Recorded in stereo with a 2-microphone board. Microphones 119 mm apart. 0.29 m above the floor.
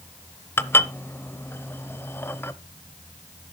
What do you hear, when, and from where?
0.6 s dishes clattering: 20° left (ahead or behind), 0.6 m